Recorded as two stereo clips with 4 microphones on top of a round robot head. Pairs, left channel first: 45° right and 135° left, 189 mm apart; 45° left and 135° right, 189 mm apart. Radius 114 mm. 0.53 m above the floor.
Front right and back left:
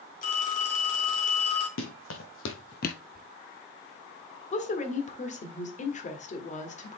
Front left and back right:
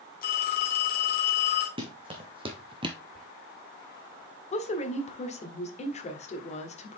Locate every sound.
0.2 s a phone ringing: 5° left, 2.5 m
1.8 s running footsteps: 70° right, 2 m; by 3.0 s 85° right, 0.5 m
3.1 s whispering: 135° left, 1.7 m
4.5 s a woman speaking: straight ahead, 1.7 m